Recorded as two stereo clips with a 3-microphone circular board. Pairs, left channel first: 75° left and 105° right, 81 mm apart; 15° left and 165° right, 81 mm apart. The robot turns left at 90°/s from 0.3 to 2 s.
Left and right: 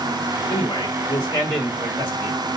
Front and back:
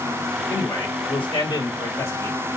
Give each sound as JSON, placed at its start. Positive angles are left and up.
{"t": 0.5, "sound": "a man speaking", "azimuth_deg": 95, "distance_m": 4.5}